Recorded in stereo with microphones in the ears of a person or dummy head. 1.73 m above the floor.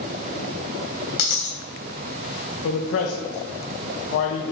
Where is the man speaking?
65° left (ahead or behind), 1.4 m.